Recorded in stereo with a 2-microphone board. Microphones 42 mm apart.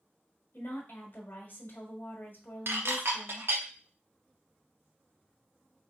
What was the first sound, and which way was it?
A woman speaking, 50° left (ahead or behind).